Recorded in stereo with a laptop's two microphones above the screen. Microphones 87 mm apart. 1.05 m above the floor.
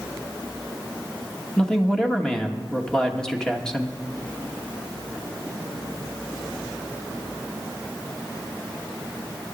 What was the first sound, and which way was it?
A man speaking, 5° left (ahead or behind).